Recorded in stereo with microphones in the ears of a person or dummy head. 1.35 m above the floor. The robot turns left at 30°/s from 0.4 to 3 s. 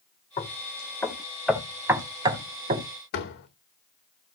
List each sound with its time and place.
0.4 s knocking: 30° left (ahead or behind), 3.5 m; by 2.9 s 45° right (ahead or behind), 3.5 m
3.1 s a door slam: 65° left (ahead or behind), 3 m